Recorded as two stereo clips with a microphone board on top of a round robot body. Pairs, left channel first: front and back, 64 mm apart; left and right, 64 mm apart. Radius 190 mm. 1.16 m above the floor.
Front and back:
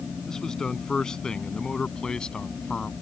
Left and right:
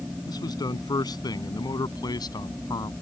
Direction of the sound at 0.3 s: 80° left.